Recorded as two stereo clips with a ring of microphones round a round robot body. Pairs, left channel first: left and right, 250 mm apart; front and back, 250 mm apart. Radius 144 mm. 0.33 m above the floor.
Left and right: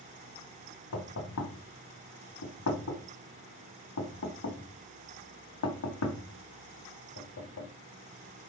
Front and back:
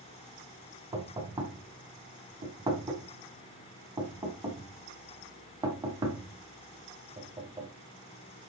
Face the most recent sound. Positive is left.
turn(degrees=105)